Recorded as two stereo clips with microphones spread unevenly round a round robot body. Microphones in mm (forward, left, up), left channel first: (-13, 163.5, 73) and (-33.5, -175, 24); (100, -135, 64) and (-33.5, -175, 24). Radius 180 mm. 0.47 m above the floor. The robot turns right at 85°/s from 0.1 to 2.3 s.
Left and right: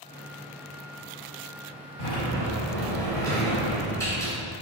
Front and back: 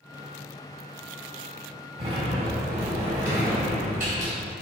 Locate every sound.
2.0 s a sliding door: 145° left, 2.5 m; by 4.3 s 170° left, 2.5 m